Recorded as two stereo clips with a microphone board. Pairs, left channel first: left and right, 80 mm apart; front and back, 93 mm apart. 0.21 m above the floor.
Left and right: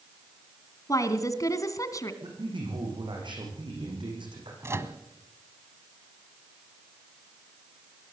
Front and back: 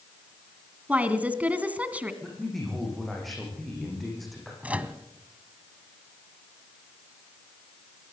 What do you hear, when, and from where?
0.9 s a woman speaking: 110° left, 2 m
2.2 s a man speaking: 90° right, 9.5 m
4.6 s a microwave: 115° right, 1.5 m